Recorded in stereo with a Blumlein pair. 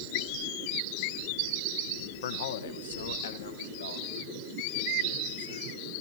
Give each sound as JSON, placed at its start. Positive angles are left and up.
{"t": 2.2, "sound": "a man speaking", "azimuth_deg": 60, "distance_m": 1.2}